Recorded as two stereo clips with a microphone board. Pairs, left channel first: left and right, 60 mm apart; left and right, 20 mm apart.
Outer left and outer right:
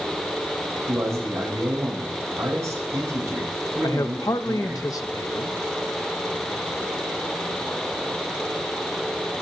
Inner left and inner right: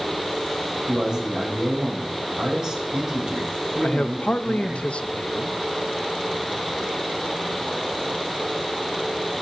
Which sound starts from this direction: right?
A man speaking, at 0.9 s.